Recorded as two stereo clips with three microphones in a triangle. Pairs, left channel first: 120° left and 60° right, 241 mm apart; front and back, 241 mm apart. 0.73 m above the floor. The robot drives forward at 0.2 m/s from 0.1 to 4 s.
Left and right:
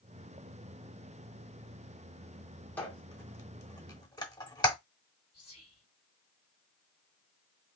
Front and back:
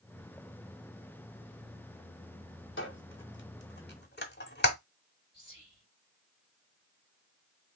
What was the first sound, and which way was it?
A squeak, 40° left.